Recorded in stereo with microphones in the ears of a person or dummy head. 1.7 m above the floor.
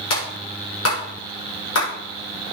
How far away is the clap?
About 6 m.